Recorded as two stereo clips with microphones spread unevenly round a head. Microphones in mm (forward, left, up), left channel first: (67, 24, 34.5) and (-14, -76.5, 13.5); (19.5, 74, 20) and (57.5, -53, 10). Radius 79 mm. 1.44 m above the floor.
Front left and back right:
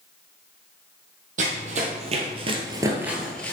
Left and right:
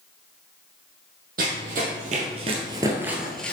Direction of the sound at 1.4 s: 100° right.